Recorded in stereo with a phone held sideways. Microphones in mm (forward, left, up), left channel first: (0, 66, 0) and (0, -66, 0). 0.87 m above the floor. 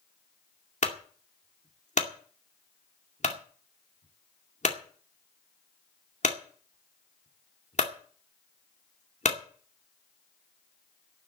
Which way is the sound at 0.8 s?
60° left (ahead or behind).